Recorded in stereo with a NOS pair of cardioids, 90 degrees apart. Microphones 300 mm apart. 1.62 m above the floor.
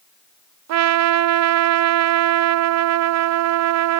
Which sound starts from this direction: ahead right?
A trumpet, at 0.7 s.